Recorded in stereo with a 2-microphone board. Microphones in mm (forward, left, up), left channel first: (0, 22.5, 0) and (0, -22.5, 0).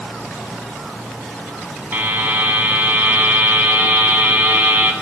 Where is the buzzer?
40° right (ahead or behind), 1.2 m.